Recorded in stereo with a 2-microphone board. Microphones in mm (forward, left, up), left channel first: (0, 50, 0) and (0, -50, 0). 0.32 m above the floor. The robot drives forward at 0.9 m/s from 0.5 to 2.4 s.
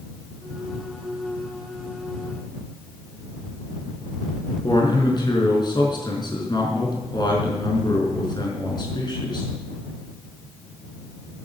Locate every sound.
4.6 s a man speaking: 45° left (ahead or behind), 4.5 m